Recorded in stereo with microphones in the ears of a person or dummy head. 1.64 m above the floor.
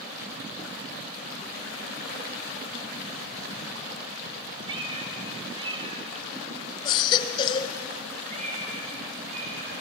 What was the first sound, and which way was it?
A cat meowing, 25° right (ahead or behind).